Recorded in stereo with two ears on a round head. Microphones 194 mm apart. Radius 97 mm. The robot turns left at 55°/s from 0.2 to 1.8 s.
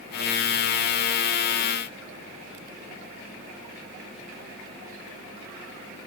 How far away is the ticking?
No ticking in this recording.